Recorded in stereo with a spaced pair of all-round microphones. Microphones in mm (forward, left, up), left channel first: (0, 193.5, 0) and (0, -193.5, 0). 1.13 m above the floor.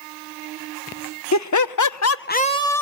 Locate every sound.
1.3 s laughter: 45° left (ahead or behind), 0.8 m; by 2.8 s 5° left (ahead or behind), 0.9 m